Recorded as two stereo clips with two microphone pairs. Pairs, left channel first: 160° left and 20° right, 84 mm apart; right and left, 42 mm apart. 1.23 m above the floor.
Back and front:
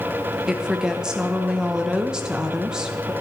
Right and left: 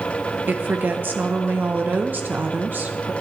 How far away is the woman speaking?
About 0.8 m.